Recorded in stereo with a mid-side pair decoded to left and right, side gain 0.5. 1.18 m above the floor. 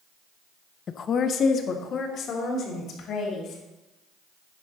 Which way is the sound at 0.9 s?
45° left.